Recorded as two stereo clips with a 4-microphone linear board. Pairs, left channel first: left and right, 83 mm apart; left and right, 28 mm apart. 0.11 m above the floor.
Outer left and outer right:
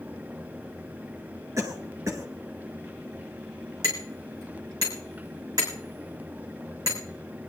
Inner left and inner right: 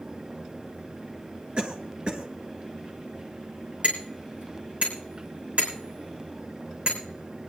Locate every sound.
1.6 s a cough: 40° right (ahead or behind), 1.3 m
3.8 s hammering: 45° right (ahead or behind), 4.5 m